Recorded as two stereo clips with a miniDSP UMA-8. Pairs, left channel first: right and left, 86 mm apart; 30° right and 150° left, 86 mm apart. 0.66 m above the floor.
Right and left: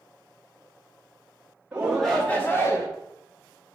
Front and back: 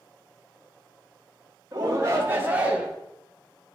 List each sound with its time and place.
1.7 s a shout: 155° left, 1.1 m; by 2.9 s 130° right, 1.4 m